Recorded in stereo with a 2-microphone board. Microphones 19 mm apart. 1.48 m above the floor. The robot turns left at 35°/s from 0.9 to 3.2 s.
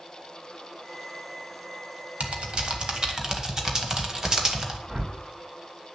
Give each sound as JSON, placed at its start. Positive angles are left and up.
{"t": 2.2, "sound": "typing on a keyboard", "side_deg": -65, "distance_m": 1.8}
{"t": 4.9, "sound": "a whoosh", "side_deg": -45, "distance_m": 2.5}